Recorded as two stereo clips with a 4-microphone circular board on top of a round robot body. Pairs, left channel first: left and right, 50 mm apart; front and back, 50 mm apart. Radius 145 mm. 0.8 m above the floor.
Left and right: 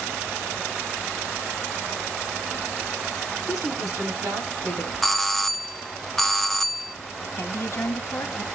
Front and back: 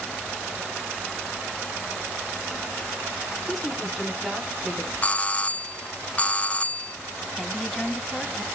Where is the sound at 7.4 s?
80° left, 1.4 m.